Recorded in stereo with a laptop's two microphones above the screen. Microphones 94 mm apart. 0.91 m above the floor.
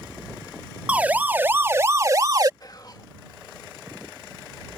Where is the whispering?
45° left (ahead or behind).